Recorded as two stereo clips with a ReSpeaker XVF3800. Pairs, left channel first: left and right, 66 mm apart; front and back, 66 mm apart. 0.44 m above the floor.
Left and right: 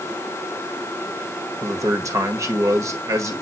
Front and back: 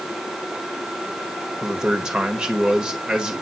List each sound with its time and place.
1.6 s a man speaking: 105° right, 1.5 m